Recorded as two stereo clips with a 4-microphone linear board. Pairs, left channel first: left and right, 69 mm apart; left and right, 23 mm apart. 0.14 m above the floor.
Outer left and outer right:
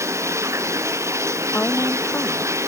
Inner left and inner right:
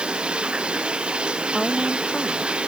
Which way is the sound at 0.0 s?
45° right (ahead or behind).